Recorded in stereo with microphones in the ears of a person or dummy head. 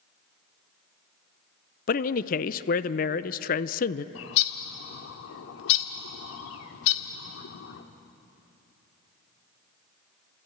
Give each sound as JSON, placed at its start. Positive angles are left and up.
{"t": 1.9, "sound": "a man speaking", "side_deg": 40, "distance_m": 0.6}
{"t": 4.2, "sound": "a bird", "side_deg": 70, "distance_m": 1.6}